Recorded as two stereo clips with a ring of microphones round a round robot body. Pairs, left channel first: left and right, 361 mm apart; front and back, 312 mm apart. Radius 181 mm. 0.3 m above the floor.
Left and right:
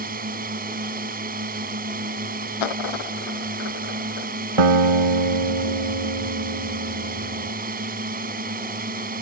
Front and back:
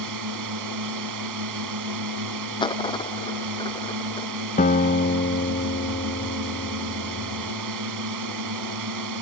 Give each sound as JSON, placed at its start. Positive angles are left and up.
{"t": 0.0, "sound": "a drone", "azimuth_deg": -155}
{"t": 2.6, "sound": "a dropped coin", "azimuth_deg": 75}
{"t": 4.6, "sound": "a guitar", "azimuth_deg": -75}